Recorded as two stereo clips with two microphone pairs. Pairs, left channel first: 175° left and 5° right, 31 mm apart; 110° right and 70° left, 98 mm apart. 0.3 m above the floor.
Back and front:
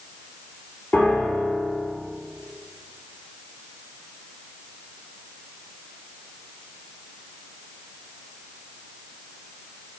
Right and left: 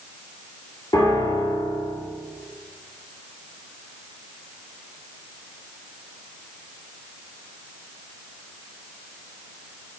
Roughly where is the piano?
Behind.